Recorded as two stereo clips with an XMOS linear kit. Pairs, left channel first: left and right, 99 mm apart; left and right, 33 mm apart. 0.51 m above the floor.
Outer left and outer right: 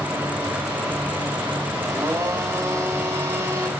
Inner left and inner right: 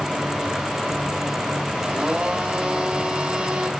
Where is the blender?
25° right (ahead or behind), 1.6 m.